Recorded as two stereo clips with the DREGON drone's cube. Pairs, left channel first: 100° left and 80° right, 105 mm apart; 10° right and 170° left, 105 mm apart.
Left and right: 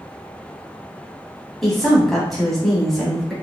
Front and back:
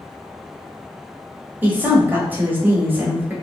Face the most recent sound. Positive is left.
turn(degrees=-175)